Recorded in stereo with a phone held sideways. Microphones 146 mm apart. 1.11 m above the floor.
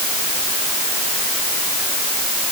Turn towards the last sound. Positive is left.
No sound to turn to.